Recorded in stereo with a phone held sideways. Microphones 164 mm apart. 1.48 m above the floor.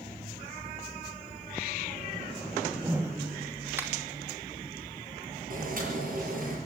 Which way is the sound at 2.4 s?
15° right (ahead or behind).